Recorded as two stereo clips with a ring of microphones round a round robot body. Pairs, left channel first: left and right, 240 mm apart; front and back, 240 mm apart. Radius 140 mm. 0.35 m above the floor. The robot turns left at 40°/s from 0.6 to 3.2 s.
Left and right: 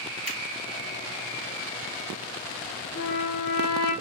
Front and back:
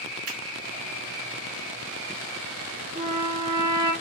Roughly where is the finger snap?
Behind right.